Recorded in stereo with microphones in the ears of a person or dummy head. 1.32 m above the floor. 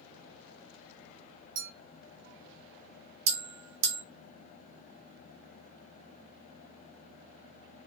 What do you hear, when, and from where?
1.6 s a clink: 75° right (ahead or behind), 1.6 m
3.3 s a bell: 60° right (ahead or behind), 1.7 m